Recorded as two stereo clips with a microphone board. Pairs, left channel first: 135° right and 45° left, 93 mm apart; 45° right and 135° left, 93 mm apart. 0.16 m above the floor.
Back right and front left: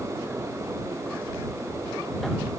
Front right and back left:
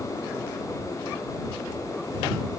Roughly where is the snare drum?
No snare drum in this recording.